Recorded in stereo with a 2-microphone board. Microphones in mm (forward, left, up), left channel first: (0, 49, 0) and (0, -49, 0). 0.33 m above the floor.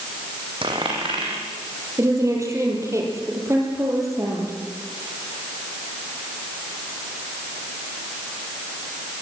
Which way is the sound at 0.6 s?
60° right (ahead or behind).